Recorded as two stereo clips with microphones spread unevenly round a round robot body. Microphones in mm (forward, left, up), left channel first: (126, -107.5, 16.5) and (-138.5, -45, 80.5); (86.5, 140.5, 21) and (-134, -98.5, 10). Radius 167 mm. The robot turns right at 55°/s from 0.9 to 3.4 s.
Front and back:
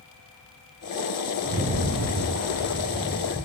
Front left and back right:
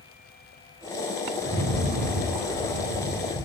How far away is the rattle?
About 0.6 m.